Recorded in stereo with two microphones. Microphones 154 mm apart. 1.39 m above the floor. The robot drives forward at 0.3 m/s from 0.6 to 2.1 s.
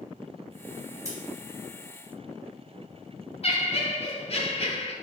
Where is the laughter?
45° left (ahead or behind), 0.5 m.